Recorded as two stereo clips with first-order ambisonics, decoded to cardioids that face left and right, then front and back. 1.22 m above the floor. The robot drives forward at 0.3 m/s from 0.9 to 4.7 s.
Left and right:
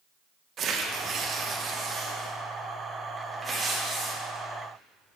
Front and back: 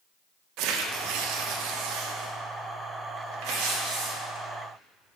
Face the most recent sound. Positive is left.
turn(degrees=-170)